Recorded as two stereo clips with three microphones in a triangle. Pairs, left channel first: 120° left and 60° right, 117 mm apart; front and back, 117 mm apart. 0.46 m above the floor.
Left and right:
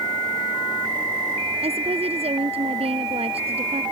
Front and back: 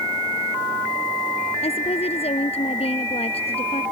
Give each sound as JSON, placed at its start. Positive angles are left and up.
{"t": 1.6, "sound": "a woman speaking", "azimuth_deg": -30}